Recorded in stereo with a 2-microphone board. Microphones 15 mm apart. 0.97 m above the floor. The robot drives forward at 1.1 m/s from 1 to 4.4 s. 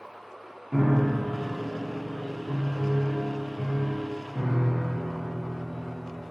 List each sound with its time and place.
0.7 s a piano: 5° left (ahead or behind), 0.5 m; by 6.2 s centre (ahead or behind), 4 m